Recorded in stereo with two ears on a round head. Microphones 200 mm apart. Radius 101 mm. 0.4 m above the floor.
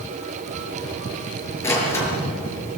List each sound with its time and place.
1.6 s a door slam: 10° left (ahead or behind), 6.5 m